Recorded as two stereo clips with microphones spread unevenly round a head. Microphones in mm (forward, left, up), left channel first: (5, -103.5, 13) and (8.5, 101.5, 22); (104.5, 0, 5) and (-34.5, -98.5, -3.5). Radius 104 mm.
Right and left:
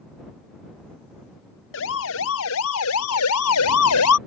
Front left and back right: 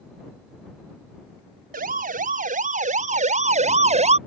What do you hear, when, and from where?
1.7 s a siren: 115° right; by 4.2 s 95° right